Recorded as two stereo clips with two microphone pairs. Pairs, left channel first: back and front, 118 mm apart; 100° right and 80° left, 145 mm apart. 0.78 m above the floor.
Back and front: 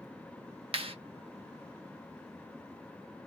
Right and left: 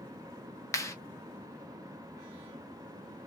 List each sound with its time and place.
0.7 s a clap: 35° right, 0.8 m